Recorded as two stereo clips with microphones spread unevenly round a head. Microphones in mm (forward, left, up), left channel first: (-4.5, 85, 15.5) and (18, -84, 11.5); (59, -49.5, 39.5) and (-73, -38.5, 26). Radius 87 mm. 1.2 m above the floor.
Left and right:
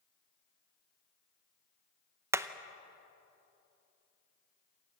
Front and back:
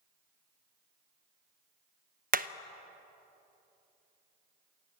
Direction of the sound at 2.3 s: 160° right.